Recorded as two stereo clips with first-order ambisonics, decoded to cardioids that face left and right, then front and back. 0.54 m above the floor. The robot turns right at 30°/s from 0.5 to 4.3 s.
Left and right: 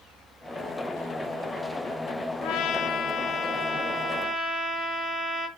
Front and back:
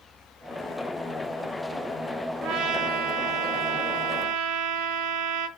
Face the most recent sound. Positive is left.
turn(degrees=-175)